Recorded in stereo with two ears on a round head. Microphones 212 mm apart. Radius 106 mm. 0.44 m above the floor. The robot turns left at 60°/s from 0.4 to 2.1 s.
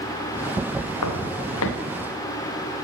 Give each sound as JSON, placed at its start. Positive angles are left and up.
{"t": 1.0, "sound": "footsteps", "side_deg": 80, "distance_m": 4.5}